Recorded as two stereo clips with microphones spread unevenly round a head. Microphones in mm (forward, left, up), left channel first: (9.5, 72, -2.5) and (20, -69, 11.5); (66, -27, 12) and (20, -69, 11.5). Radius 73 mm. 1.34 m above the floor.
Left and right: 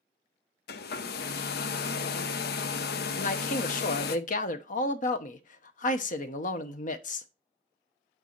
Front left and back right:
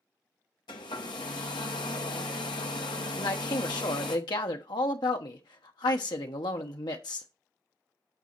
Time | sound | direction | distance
0.7 | a hair dryer | 75° left | 0.7 m
3.2 | a man speaking | 65° left | 0.9 m